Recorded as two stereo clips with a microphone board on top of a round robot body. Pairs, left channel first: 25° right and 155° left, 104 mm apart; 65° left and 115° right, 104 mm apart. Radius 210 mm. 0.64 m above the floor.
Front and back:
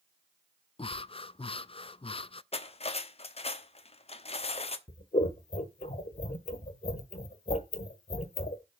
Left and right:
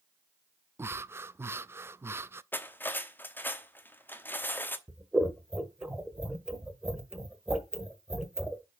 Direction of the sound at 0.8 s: 45° right.